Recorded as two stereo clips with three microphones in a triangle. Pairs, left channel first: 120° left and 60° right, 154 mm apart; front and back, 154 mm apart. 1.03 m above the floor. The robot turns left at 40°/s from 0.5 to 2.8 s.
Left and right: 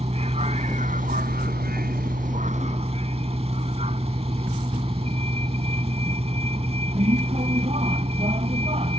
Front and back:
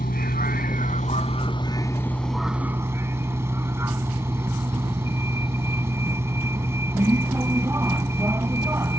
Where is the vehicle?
15° right; by 9.0 s 105° right.